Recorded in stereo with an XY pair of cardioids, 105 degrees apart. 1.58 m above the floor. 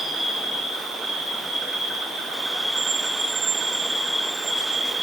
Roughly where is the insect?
Ahead right.